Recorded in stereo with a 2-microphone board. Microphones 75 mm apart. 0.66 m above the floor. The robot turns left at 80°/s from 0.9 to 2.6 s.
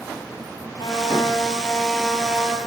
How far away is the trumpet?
About 6 m.